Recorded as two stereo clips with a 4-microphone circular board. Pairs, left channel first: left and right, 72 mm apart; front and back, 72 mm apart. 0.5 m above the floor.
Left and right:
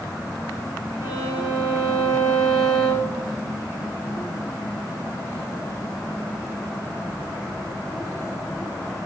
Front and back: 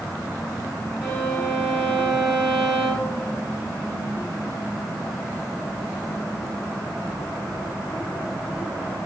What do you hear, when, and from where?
1.0 s a violin: 100° left, 3.5 m